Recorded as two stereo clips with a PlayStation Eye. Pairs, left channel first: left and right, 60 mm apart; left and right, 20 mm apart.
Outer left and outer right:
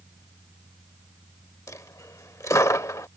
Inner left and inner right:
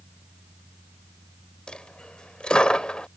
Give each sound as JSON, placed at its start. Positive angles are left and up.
{"t": 1.7, "sound": "a dropped coin", "side_deg": 60}